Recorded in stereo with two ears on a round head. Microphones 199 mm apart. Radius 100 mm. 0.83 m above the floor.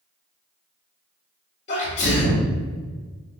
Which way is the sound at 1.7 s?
30° left (ahead or behind).